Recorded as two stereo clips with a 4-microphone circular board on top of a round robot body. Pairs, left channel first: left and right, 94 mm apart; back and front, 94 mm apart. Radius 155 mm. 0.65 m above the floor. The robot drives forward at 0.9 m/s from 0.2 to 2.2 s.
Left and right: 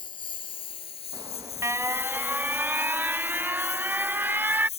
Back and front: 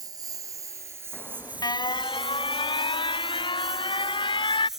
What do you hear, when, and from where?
0.0 s a lawn mower: 50° left; by 4.8 s 85° left
1.1 s an alarm: 115° right; by 4.7 s 160° right